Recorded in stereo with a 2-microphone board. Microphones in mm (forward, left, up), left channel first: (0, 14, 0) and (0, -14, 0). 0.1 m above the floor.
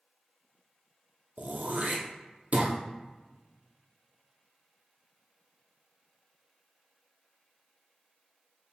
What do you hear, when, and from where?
1.4 s throat clearing: 60° right (ahead or behind), 0.8 m